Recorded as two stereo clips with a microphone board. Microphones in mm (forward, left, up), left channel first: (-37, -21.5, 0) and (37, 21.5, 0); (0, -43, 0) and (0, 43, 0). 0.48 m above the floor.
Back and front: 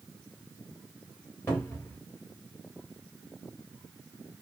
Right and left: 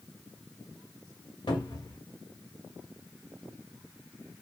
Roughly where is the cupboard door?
Right.